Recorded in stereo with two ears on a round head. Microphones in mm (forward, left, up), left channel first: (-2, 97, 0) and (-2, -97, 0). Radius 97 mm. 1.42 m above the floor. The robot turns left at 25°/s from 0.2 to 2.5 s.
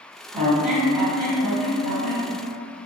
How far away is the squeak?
About 1.4 m.